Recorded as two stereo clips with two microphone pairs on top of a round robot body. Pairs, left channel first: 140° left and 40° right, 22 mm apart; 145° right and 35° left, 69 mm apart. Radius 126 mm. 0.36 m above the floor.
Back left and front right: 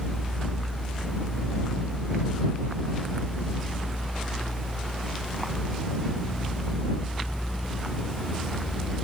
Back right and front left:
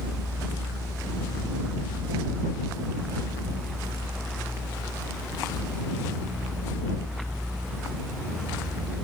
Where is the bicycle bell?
I don't hear a bicycle bell.